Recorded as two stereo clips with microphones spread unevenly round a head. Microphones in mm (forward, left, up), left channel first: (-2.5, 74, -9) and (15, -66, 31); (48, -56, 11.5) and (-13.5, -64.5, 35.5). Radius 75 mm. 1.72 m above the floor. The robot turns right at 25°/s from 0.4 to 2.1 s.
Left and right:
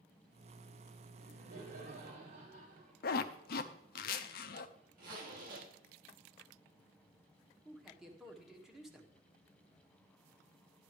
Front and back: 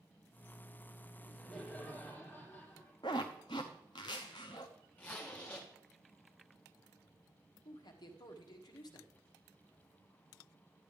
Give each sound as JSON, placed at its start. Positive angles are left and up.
{"t": 1.2, "sound": "laughter", "azimuth_deg": -80, "distance_m": 6.5}
{"t": 3.0, "sound": "a zipper", "azimuth_deg": 65, "distance_m": 0.6}
{"t": 5.0, "sound": "a zipper", "azimuth_deg": -65, "distance_m": 3.0}
{"t": 7.7, "sound": "a man speaking", "azimuth_deg": 5, "distance_m": 1.5}